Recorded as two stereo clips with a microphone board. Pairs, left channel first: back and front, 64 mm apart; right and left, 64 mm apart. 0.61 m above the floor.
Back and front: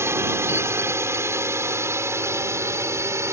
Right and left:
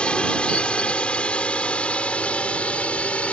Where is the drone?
20° right; by 3.3 s 25° right.